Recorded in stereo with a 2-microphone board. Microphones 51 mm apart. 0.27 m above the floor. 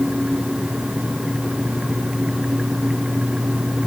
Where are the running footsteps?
I don't hear running footsteps.